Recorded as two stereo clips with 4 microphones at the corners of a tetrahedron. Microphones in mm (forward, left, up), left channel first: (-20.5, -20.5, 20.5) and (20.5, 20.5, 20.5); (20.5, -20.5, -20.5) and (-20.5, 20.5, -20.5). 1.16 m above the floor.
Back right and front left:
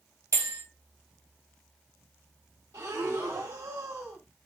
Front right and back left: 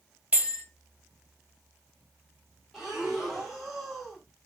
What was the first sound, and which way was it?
A bell, 65° left.